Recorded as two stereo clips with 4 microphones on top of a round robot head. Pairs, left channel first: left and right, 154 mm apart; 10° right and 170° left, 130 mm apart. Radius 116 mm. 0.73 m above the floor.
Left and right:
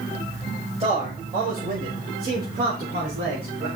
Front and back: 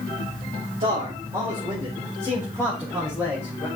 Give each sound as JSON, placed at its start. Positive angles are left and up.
{"t": 0.8, "sound": "a man speaking", "azimuth_deg": -135, "distance_m": 4.5}